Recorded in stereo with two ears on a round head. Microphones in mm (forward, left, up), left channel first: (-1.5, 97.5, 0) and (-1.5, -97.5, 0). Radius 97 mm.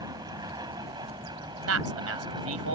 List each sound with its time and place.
0.0 s an aircraft: 20° right (ahead or behind)
1.7 s a man speaking: 70° right (ahead or behind)